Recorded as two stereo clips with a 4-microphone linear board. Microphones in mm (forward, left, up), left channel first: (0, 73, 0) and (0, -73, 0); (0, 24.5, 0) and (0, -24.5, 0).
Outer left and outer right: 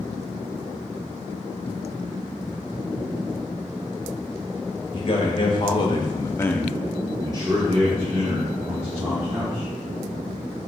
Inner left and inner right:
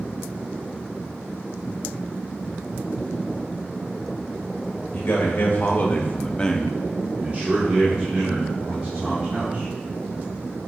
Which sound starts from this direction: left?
A man speaking, at 4.9 s.